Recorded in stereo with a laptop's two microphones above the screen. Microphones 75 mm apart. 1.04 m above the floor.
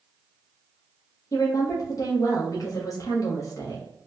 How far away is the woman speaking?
About 0.8 m.